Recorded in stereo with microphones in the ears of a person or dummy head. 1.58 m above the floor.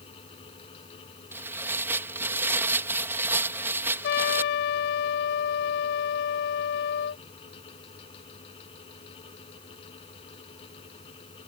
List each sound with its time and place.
0.0 s a fan: 30° left (ahead or behind)
1.3 s tearing paper: 15° right (ahead or behind)
4.0 s a trumpet: 60° left (ahead or behind)